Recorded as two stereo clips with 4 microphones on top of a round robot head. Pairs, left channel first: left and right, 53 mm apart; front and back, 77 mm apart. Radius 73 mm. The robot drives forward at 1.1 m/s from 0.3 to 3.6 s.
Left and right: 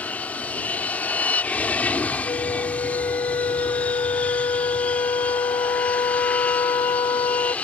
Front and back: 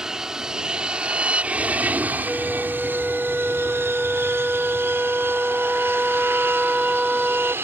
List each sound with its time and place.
0.0 s an aircraft: 105° left; by 7.7 s 140° left
2.2 s a flute: 85° left; by 7.5 s 95° left